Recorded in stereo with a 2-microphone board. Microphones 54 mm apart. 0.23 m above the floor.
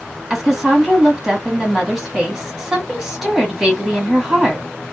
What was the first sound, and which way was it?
A woman speaking, 10° right (ahead or behind).